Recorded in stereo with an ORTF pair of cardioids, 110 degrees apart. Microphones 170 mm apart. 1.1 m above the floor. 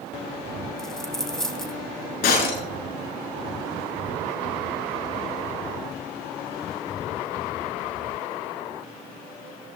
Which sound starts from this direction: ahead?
A dropped coin, at 0.8 s.